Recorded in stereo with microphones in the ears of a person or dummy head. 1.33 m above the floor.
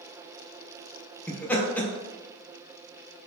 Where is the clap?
No clap in this recording.